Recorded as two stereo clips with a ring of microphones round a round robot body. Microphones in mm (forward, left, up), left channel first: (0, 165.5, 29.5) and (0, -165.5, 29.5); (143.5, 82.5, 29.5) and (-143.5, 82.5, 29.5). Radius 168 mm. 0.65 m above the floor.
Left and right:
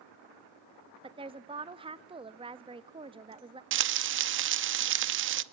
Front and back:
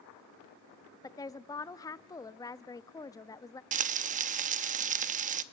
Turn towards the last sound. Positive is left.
turn(degrees=-125)